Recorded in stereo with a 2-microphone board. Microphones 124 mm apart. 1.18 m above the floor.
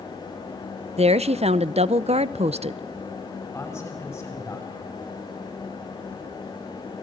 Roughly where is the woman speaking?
Right.